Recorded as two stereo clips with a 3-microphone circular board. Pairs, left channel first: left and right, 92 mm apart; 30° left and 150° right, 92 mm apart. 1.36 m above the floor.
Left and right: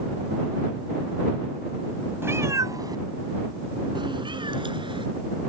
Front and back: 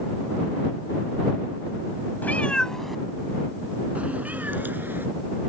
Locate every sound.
2.2 s a cat meowing: 35° right; by 5.0 s 85° right